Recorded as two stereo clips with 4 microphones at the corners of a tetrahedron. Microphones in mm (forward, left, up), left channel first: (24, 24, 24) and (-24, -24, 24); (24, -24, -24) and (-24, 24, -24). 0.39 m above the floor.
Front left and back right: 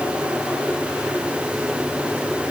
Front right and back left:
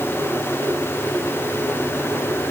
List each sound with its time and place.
Only background noise.